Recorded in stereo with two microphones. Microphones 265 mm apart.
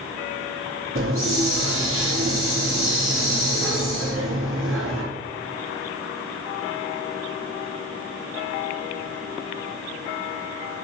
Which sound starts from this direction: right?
A hiss, at 0.9 s.